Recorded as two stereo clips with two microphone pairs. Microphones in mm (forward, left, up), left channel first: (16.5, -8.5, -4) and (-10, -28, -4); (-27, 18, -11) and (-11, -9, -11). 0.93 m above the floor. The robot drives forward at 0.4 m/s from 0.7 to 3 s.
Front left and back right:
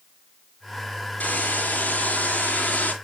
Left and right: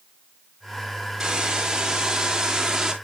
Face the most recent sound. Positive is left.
turn(degrees=15)